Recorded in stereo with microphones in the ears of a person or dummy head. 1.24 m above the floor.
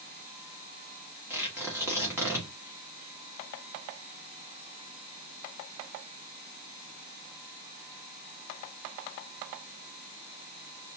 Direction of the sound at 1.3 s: 10° right (ahead or behind).